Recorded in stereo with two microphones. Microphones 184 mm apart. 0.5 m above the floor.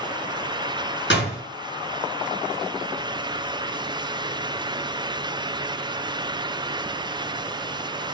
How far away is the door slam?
About 4 m.